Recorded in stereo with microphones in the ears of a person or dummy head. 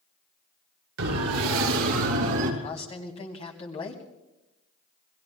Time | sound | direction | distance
1.0 | a siren | 85° right | 3 m
2.6 | a man speaking | 35° left (ahead or behind) | 2.5 m